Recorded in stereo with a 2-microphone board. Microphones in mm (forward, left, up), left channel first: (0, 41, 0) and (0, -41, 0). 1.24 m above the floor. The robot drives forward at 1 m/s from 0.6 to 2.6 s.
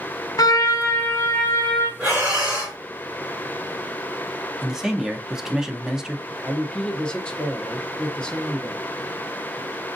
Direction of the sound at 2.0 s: 15° right (ahead or behind).